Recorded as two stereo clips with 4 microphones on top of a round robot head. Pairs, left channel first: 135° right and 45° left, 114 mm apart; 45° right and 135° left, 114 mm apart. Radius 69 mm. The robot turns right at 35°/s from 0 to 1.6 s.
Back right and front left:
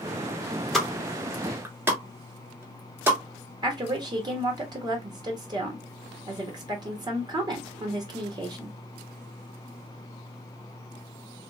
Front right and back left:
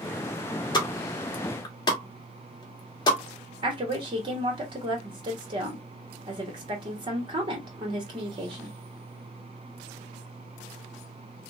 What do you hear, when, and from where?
0.7 s a pop: 45° right, 1.2 m; by 3.2 s 15° right, 1.2 m
3.6 s a woman speaking: 95° left, 1.6 m